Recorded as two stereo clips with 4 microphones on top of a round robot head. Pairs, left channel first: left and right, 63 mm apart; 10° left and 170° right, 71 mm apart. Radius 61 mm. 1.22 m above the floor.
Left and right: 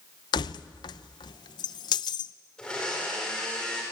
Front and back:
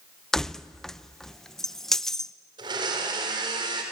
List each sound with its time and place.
0.3 s keys jangling: 90° left, 0.6 m
2.6 s a blender: 170° left, 4 m